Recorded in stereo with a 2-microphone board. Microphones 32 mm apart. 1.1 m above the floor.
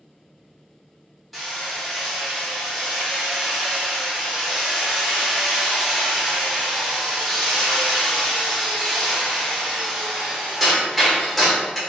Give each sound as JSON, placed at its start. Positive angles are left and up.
{"t": 1.3, "sound": "hammering", "side_deg": -5, "distance_m": 1.2}